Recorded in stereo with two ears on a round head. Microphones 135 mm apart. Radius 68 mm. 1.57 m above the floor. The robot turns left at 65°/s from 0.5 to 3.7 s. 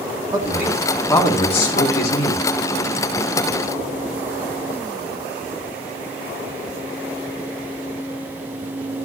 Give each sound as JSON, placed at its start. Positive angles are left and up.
{"t": 0.3, "sound": "a man speaking", "azimuth_deg": -155, "distance_m": 4.5}